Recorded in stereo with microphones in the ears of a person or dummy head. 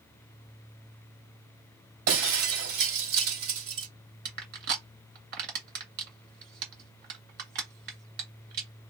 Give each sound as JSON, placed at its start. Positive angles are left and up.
{"t": 2.1, "sound": "breaking glass", "side_deg": -70, "distance_m": 2.5}
{"t": 4.2, "sound": "crushing", "side_deg": -55, "distance_m": 2.5}